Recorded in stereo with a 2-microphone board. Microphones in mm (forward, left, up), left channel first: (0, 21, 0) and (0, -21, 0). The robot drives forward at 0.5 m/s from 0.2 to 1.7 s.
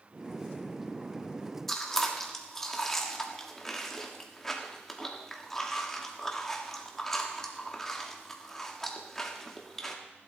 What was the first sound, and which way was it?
Chewing, 10° left (ahead or behind).